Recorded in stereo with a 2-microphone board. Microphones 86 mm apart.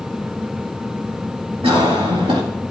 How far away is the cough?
About 2 m.